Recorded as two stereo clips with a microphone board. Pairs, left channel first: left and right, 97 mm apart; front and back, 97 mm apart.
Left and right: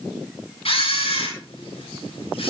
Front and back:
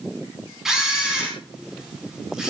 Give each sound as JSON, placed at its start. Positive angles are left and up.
{"t": 0.7, "sound": "a camera shutter", "azimuth_deg": 95, "distance_m": 6.5}